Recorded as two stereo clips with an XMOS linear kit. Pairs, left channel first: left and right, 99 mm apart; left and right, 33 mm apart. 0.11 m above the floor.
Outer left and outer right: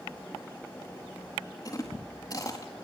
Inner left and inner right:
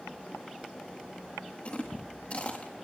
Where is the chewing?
40° left (ahead or behind), 4 m.